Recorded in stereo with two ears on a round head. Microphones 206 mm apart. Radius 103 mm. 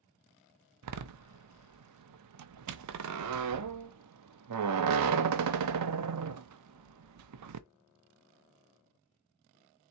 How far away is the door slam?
About 0.5 m.